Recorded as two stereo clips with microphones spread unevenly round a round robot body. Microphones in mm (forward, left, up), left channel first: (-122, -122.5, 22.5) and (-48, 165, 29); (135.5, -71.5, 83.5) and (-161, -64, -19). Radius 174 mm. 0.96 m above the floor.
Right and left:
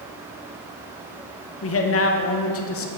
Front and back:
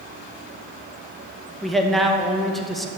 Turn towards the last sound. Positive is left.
turn(degrees=-110)